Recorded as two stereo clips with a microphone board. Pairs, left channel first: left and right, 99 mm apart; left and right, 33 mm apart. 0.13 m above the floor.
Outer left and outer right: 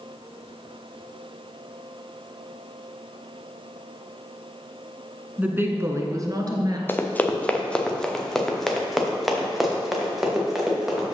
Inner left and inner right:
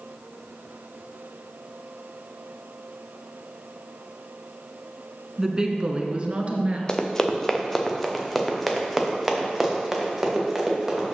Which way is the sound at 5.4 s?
15° right (ahead or behind).